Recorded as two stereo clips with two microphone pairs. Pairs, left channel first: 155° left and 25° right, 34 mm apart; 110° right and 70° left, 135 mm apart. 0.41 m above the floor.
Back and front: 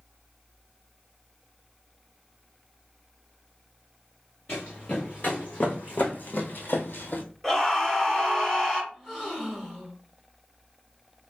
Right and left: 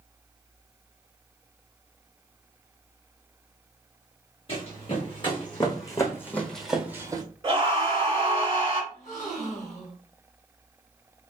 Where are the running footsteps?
155° right, 2.0 m; by 7.2 s 125° left, 0.8 m.